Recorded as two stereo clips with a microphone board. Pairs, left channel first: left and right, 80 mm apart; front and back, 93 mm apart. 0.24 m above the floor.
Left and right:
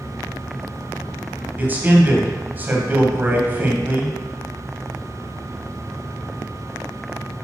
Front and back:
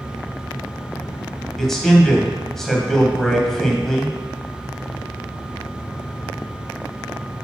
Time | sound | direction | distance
1.6 | a man speaking | 80° right | 1.2 m